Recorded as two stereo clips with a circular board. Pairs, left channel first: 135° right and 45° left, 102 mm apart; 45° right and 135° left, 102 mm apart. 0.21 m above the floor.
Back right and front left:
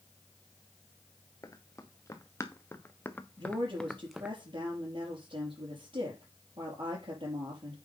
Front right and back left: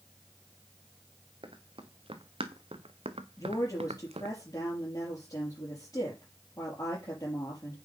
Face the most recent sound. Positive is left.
turn(degrees=10)